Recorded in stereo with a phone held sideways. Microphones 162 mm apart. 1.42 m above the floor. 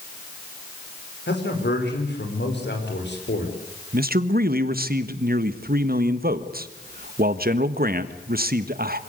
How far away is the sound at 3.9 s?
About 1.5 m.